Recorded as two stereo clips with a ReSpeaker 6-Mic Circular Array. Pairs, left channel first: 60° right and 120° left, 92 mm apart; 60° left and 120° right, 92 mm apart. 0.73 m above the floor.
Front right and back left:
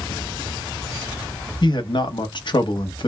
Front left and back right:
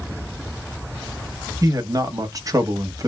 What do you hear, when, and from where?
1.6 s a man speaking: 75° right, 0.8 m